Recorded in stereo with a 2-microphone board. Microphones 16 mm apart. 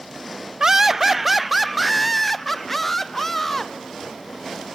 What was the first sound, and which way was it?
Laughter, 35° right (ahead or behind).